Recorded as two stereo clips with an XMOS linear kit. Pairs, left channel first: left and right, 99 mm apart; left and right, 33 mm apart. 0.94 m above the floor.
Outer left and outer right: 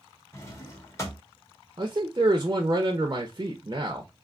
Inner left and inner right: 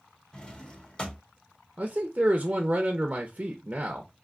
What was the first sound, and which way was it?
A drawer, 25° left (ahead or behind).